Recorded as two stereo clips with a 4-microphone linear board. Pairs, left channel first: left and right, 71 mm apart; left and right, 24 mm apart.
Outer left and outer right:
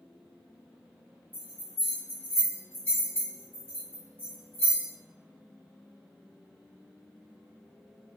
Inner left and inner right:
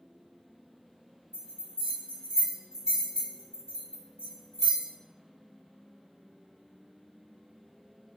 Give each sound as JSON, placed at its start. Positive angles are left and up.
{"t": 1.3, "sound": "a bell", "side_deg": -30, "distance_m": 1.6}